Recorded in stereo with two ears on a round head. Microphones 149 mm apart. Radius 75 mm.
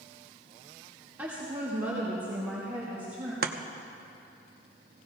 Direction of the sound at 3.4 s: 60° right (ahead or behind).